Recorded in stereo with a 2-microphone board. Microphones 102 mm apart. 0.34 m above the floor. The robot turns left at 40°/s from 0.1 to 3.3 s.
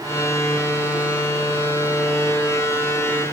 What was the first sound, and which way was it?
Only background noise.